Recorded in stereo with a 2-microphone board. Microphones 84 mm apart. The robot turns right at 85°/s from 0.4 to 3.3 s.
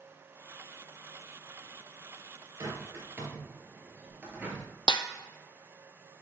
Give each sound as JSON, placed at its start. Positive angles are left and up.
{"t": 2.6, "sound": "a bird", "side_deg": -45, "distance_m": 2.0}
{"t": 4.9, "sound": "a snare drum", "side_deg": 70, "distance_m": 0.6}